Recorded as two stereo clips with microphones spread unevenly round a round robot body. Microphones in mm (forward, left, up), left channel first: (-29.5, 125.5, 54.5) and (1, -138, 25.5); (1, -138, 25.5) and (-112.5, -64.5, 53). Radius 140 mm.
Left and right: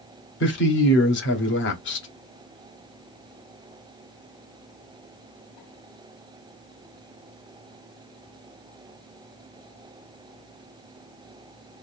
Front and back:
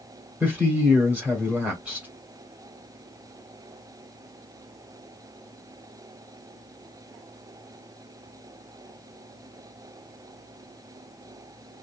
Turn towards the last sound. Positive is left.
turn(degrees=55)